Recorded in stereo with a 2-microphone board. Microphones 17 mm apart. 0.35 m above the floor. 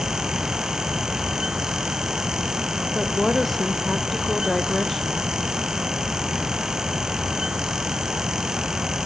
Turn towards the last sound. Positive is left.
turn(degrees=10)  # may be behind; listen again after turning